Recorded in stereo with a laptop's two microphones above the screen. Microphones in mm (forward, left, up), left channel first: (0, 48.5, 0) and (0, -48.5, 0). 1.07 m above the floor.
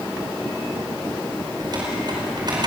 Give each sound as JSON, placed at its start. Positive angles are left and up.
{"t": 1.6, "sound": "typing on a keyboard", "side_deg": -50, "distance_m": 5.0}